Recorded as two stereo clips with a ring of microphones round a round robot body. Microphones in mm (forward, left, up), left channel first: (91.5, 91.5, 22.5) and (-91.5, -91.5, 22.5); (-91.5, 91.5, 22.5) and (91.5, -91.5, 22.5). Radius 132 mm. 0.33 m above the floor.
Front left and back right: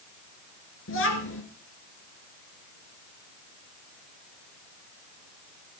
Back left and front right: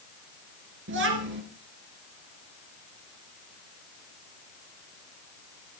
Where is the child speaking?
Straight ahead, 3.5 m.